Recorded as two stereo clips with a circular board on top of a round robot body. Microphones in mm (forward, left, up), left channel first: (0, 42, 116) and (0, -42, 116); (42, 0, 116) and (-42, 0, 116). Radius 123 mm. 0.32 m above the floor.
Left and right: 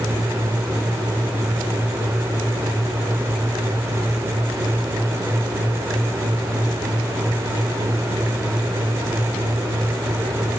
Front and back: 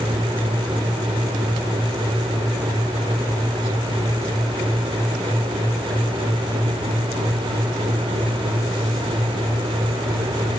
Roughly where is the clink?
No clink in this recording.